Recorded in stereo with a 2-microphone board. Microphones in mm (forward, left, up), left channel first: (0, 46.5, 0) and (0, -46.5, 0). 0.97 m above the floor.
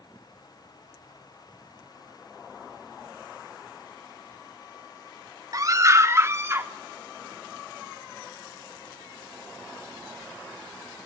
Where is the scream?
40° right (ahead or behind), 1.4 m; by 6.7 s 25° right (ahead or behind), 2 m.